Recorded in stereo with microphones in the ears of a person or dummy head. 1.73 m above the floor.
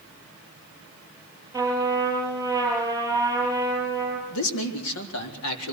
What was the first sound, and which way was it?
A trumpet, 15° right (ahead or behind).